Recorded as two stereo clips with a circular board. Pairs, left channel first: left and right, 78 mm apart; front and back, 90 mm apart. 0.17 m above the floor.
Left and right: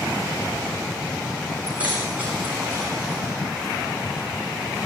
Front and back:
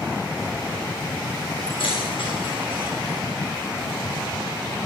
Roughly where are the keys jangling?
Ahead.